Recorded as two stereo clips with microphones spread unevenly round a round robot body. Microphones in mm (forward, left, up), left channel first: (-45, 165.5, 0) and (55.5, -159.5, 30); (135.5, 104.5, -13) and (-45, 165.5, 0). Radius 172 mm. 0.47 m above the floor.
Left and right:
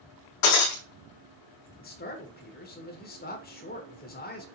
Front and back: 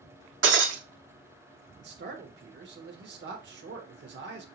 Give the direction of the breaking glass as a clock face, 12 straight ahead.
7 o'clock.